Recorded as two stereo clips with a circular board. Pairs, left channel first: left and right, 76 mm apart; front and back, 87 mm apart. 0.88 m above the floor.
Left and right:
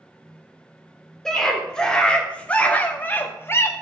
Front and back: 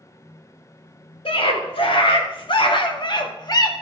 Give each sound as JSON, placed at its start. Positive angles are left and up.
{"t": 1.2, "sound": "a scream", "azimuth_deg": 5, "distance_m": 3.5}